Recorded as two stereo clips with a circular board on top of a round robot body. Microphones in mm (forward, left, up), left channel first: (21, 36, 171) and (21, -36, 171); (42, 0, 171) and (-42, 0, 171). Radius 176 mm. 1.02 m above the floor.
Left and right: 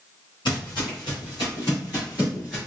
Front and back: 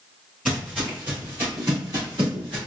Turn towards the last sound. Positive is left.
turn(degrees=170)